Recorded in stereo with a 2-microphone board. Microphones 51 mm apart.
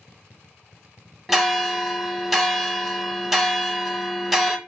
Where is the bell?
Centre (ahead or behind), 1.1 m.